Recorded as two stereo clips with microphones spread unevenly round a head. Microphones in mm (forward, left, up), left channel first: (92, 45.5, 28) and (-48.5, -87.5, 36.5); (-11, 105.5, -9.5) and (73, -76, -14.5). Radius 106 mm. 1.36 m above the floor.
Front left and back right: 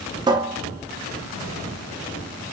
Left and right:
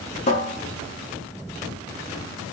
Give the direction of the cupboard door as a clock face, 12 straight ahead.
7 o'clock.